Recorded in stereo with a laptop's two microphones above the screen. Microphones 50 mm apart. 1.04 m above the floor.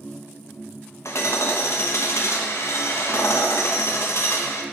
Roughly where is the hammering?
Left.